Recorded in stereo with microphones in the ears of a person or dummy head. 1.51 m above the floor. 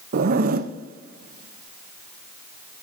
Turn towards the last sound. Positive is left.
turn(degrees=-55)  # may be behind; listen again after turning